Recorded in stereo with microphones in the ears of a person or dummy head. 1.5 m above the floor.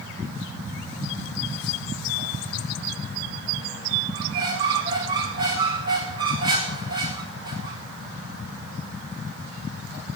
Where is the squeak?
25° right (ahead or behind), 1.4 m.